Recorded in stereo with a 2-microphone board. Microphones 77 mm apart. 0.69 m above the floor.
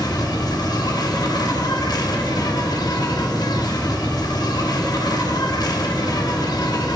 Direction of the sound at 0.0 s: 60° left (ahead or behind).